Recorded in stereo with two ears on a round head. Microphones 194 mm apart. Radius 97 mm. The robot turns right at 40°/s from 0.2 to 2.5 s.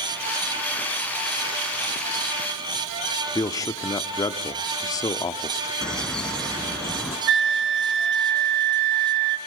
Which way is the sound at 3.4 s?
15° left (ahead or behind).